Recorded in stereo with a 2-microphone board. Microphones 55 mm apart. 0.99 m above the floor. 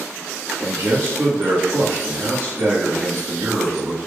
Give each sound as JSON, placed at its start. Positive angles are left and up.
{"t": 0.6, "sound": "a man speaking", "side_deg": -55, "distance_m": 2.0}